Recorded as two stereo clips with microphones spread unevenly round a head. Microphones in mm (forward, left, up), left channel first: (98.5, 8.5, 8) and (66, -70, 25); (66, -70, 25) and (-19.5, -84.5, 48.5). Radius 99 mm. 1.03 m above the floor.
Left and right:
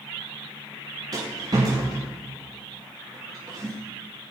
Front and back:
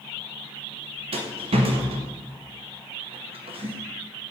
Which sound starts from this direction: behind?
A rattle, at 1.1 s.